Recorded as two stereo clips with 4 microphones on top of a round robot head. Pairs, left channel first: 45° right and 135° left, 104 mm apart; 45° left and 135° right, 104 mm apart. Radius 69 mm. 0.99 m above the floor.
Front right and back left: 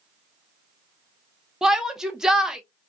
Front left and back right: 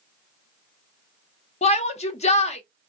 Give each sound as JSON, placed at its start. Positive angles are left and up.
{"t": 1.6, "sound": "a shout", "azimuth_deg": 50, "distance_m": 0.7}